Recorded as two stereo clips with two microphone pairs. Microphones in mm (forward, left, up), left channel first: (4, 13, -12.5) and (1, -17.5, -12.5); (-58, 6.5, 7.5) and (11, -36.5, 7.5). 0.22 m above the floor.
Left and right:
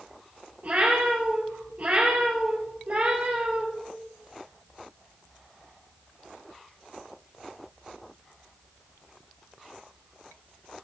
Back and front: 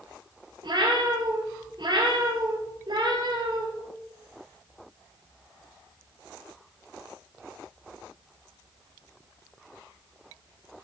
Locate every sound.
0.6 s a cat meowing: 60° right, 2.5 m